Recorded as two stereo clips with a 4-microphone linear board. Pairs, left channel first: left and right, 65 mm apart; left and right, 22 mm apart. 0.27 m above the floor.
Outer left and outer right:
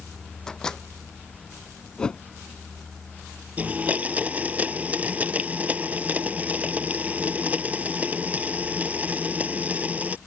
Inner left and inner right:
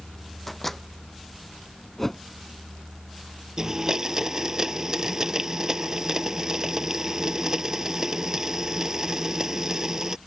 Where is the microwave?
10° left (ahead or behind).